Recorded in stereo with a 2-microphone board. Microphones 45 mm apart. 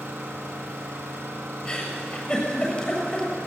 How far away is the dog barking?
I don't hear a dog barking.